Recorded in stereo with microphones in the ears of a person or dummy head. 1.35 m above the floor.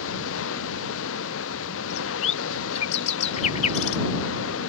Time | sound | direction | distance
0.0 | running water | 75° left (ahead or behind) | ?
1.9 | a bird | 35° left (ahead or behind) | ?